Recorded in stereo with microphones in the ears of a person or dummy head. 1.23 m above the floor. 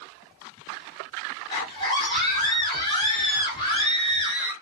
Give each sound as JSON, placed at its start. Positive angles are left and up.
{"t": 1.5, "sound": "a scream", "side_deg": 25, "distance_m": 0.9}